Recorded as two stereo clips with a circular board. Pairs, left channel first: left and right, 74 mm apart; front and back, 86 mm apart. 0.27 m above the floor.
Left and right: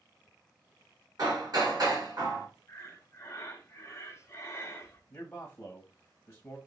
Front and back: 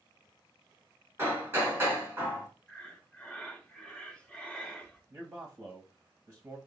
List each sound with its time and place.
1.2 s hammering: 120° right, 2 m
2.7 s breathing: 70° left, 1.1 m
5.1 s a man speaking: 130° left, 1.0 m